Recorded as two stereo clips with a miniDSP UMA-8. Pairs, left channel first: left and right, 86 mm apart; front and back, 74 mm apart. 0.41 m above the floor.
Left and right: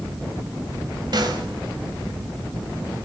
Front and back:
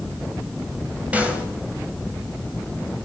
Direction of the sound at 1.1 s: 110° right.